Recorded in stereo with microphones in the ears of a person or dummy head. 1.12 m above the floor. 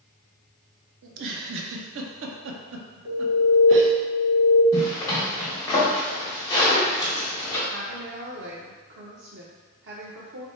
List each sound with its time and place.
1.0 s a giggle: 65° right (ahead or behind), 0.6 m
3.0 s an alarm: 60° right (ahead or behind), 1.6 m
4.7 s a zipper: 20° left (ahead or behind), 1.4 m
7.7 s a woman speaking: 60° right (ahead or behind), 0.6 m